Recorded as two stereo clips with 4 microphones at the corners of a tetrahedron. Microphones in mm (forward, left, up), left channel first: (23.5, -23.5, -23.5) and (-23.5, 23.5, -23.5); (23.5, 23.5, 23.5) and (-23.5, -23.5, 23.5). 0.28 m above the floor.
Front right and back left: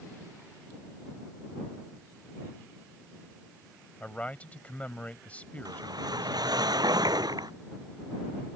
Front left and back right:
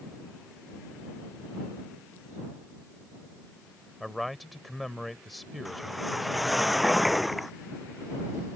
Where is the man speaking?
45° right.